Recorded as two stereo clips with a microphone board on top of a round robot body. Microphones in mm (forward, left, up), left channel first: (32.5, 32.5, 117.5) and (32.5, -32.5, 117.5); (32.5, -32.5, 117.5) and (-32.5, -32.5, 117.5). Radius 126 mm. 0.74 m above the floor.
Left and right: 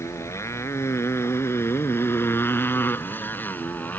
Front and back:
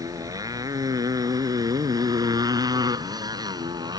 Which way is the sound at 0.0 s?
140° left.